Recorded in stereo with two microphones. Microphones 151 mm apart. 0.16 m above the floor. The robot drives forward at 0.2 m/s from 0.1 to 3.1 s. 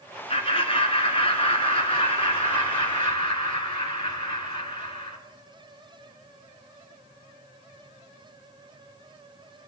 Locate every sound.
0.3 s laughter: 40° left (ahead or behind), 2 m; by 5.2 s 35° left (ahead or behind), 2.5 m